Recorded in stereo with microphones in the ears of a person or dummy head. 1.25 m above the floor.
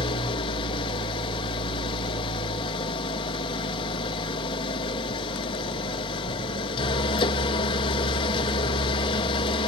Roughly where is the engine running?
Left.